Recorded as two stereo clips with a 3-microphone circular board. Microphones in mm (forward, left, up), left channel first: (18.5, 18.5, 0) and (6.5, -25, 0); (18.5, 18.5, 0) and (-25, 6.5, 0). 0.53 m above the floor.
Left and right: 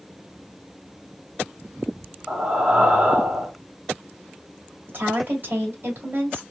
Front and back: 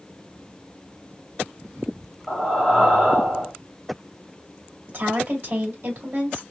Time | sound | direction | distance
2.3 | breathing | 65° right | 1.3 m
4.9 | a woman speaking | 145° right | 1.6 m